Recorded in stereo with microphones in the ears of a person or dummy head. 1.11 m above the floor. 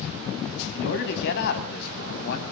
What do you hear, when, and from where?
0.7 s a man speaking: 65° left (ahead or behind), 7 m; by 2.4 s 60° left (ahead or behind), 6.5 m